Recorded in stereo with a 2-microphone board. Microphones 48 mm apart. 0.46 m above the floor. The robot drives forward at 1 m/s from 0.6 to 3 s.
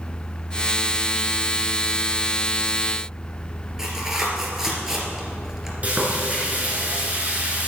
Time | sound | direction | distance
3.8 | tearing paper | 10° right (ahead or behind) | 3 m
5.8 | frying | 30° right (ahead or behind) | 3.5 m